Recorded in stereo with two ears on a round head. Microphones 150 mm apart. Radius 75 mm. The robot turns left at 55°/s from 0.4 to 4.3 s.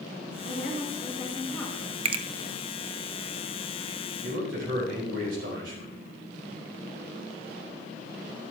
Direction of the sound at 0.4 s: 75° left.